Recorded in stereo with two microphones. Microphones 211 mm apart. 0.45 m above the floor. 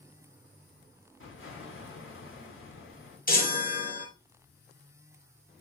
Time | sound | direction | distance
1.2 | an explosion | 75° left (ahead or behind) | 1.8 m
3.3 | a chime | 40° left (ahead or behind) | 0.8 m